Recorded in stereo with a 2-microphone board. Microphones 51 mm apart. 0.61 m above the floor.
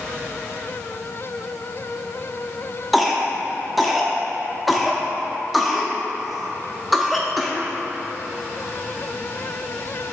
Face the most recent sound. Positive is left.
turn(degrees=0)  # may be behind; listen again after turning